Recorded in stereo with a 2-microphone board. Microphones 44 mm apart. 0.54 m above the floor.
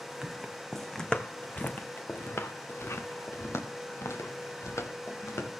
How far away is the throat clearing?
I don't hear throat clearing.